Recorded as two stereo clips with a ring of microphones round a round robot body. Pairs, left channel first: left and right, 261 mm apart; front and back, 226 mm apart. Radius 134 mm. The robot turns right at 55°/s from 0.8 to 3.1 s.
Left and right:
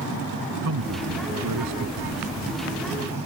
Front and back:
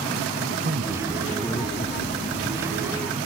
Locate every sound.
0.6 s a man speaking: 120° right; by 2.2 s 40° right